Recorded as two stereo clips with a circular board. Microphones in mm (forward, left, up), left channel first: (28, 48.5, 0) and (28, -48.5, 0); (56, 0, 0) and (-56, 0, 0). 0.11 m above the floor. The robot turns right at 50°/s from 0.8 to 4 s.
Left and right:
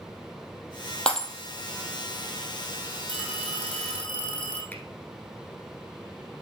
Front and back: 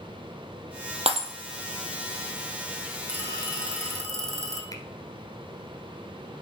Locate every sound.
1.1 s breaking glass: 170° left, 1.5 m; by 1.3 s straight behind, 1.5 m
3.1 s a phone ringing: 70° left, 3.5 m; by 4.6 s 115° left, 3.5 m
4.7 s a finger snap: 30° left, 1.2 m